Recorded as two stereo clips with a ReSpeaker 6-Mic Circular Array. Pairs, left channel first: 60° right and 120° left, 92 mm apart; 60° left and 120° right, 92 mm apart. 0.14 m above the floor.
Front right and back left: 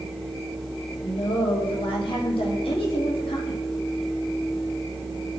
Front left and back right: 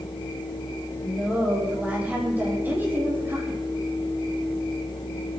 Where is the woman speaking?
40° right, 7.5 m; by 3.6 s 60° right, 6 m.